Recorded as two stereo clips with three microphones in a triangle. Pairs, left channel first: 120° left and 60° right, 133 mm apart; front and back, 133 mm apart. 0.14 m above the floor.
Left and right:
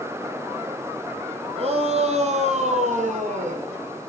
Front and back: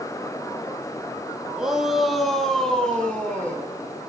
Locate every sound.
1.6 s a shout: 95° right, 4.5 m; by 3.7 s 80° right, 6 m